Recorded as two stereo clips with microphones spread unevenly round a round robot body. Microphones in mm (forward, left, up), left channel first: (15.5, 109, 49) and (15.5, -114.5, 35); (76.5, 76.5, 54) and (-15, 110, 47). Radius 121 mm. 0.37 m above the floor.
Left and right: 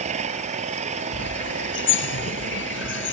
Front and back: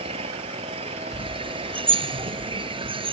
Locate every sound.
0.0 s an engine running: 155° right
1.1 s a bird: 130° left